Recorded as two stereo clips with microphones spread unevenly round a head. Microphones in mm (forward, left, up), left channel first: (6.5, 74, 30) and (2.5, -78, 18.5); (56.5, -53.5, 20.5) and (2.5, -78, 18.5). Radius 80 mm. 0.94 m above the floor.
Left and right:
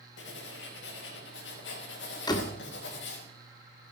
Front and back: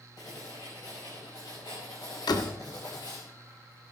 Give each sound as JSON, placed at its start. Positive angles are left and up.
{"t": 0.2, "sound": "writing", "azimuth_deg": 85, "distance_m": 4.5}
{"t": 2.3, "sound": "a door slam", "azimuth_deg": 20, "distance_m": 1.7}